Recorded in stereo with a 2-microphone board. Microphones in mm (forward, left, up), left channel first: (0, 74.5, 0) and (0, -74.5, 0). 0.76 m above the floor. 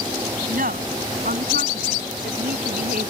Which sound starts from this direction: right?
A woman speaking, at 0.5 s.